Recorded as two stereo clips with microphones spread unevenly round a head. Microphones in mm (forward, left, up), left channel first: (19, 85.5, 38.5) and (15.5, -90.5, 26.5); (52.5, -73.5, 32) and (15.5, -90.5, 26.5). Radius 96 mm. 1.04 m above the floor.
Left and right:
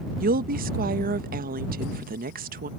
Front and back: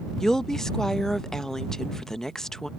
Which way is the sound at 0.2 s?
55° right.